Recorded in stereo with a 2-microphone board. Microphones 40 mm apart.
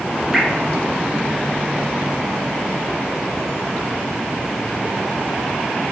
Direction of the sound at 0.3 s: 5° right (ahead or behind).